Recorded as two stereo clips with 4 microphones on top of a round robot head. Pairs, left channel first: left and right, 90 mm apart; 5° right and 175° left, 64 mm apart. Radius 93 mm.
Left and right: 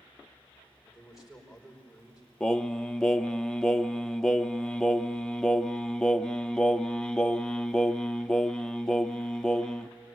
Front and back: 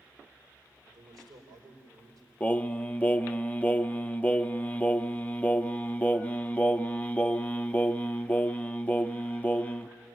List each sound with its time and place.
0.9 s a man speaking: 175° right, 4.5 m
2.4 s singing: 20° left, 0.6 m